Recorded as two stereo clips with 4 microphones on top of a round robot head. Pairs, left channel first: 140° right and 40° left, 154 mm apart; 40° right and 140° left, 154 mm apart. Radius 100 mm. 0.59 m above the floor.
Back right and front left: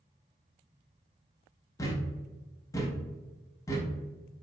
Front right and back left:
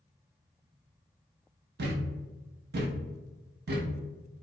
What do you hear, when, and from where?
1.8 s a thud: 150° left, 0.6 m